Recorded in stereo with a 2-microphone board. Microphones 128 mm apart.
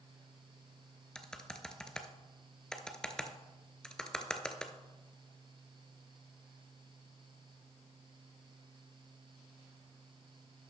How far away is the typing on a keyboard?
About 0.6 m.